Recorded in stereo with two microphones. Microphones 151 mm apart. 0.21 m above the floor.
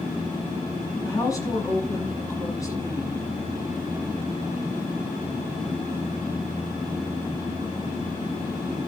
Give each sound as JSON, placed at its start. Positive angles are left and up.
{"t": 1.0, "sound": "a woman speaking", "side_deg": 20, "distance_m": 1.9}